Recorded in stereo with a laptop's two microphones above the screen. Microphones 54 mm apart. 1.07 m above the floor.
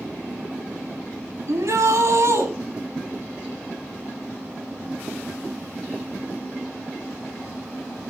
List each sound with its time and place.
1.5 s a shout: 65° right (ahead or behind), 7.5 m